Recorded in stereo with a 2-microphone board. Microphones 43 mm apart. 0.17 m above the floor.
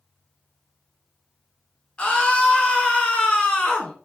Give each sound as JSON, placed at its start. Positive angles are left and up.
{"t": 2.0, "sound": "a scream", "side_deg": 25, "distance_m": 2.0}